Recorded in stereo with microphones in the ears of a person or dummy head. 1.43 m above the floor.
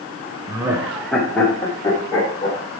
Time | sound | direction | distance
0.5 | laughter | 25° right (ahead or behind) | 0.6 m